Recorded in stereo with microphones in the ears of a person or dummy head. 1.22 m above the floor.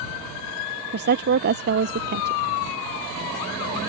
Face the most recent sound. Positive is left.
turn(degrees=-50)  # may be behind; listen again after turning